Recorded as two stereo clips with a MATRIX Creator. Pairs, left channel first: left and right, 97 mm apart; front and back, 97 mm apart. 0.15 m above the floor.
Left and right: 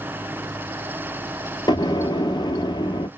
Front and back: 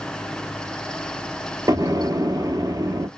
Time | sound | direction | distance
1.7 | an explosion | 130° left | 0.6 m